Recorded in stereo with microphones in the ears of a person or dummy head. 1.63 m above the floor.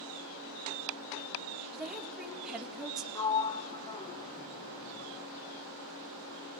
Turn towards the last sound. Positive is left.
turn(degrees=20)  # may be behind; listen again after turning